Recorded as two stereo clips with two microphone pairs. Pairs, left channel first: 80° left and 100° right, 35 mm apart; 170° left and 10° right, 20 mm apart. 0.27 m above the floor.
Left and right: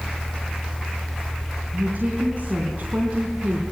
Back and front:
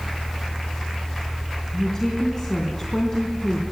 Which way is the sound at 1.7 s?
130° right.